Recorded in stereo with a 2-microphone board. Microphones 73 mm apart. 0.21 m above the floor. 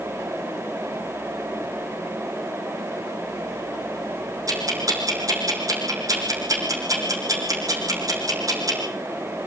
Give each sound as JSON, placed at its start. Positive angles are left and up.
{"t": 4.5, "sound": "ticking", "side_deg": -50, "distance_m": 5.0}